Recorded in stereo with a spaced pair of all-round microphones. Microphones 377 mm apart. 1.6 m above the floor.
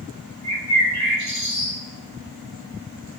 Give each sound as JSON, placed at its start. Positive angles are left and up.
{"t": 0.4, "sound": "a bird", "side_deg": 70, "distance_m": 3.0}